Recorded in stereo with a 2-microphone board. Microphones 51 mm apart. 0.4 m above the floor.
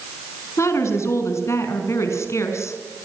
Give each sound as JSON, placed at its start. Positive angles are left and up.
{"t": 0.6, "sound": "a woman speaking", "side_deg": 65, "distance_m": 5.5}